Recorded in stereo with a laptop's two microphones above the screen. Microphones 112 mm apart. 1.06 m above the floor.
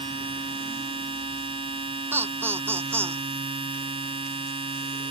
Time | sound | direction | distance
0.0 | a machine running | 55° right (ahead or behind) | ?
2.1 | laughter | 20° right (ahead or behind) | ?